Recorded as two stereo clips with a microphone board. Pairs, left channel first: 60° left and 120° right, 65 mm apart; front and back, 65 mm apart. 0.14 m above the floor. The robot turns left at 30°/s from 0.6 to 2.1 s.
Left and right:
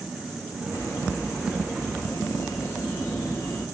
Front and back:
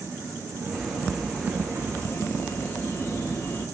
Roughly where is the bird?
Left.